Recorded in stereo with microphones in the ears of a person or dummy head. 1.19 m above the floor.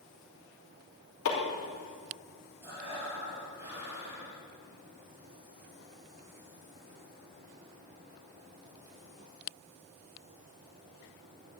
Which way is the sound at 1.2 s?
70° left (ahead or behind).